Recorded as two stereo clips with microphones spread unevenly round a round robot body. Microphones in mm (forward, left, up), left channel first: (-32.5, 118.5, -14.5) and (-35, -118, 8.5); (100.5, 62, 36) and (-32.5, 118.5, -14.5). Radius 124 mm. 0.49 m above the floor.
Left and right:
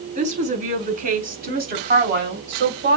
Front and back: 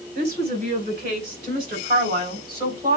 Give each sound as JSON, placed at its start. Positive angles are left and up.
{"t": 0.1, "sound": "a woman speaking", "azimuth_deg": -150, "distance_m": 6.5}